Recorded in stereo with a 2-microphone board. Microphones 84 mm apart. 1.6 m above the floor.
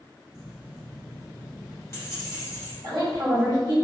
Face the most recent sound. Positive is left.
turn(degrees=-55)  # may be behind; listen again after turning